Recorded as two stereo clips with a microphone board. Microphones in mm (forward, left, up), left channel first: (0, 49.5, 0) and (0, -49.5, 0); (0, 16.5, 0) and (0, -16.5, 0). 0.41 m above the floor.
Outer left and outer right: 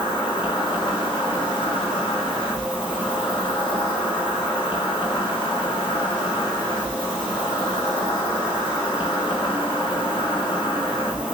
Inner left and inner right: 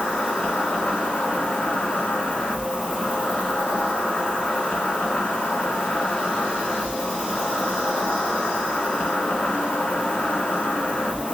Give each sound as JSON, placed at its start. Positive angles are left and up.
{"t": 0.0, "sound": "an insect", "side_deg": 55, "distance_m": 2.5}